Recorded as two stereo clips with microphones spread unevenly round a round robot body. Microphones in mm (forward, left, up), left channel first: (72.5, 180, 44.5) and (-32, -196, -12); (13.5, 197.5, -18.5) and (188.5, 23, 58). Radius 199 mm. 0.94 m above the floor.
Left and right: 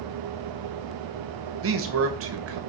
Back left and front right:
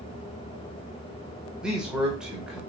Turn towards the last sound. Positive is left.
turn(degrees=-145)